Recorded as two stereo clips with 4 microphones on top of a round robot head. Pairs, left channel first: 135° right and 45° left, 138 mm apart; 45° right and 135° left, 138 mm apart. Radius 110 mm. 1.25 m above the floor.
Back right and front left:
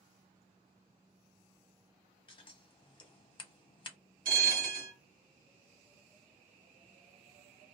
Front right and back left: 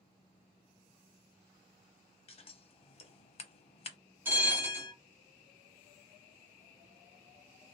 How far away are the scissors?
About 0.7 m.